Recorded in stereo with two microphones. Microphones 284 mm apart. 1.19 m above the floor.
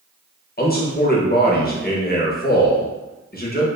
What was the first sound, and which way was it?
A man speaking, 35° left (ahead or behind).